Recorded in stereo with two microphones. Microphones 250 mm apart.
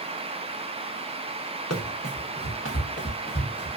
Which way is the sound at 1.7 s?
80° left.